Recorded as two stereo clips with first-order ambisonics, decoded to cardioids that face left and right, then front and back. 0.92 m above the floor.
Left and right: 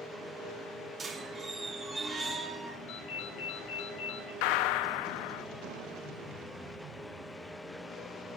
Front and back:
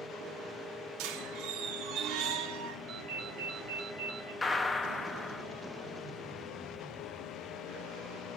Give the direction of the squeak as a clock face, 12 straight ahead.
5 o'clock.